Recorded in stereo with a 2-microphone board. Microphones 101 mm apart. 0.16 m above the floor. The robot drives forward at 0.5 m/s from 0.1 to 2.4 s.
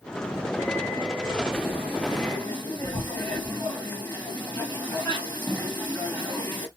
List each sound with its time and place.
1.5 s frying: 20° left (ahead or behind), 1.4 m; by 6.7 s 15° left (ahead or behind), 1.8 m